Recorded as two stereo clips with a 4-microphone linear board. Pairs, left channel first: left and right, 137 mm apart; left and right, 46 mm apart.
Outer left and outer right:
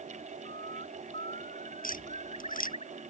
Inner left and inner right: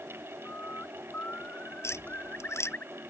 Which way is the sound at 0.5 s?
45° left (ahead or behind).